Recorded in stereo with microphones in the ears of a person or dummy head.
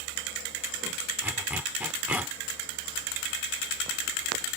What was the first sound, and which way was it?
A zipper, 10° right (ahead or behind).